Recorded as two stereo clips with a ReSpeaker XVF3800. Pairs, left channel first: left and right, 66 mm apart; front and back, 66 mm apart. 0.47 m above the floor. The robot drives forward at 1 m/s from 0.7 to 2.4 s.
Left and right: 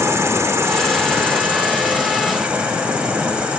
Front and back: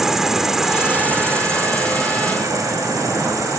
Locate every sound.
0.0 s an insect: 95° right, 0.9 m; by 3.6 s 160° right, 2.0 m